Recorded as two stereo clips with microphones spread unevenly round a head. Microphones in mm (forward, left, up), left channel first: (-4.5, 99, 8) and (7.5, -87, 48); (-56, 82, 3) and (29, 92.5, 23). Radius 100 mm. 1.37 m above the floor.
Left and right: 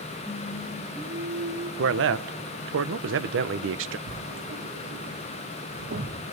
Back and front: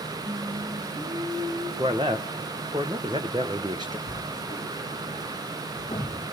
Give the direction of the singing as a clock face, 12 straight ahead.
12 o'clock.